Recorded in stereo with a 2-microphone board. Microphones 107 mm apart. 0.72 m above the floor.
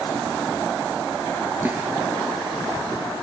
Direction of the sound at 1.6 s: 15° right (ahead or behind).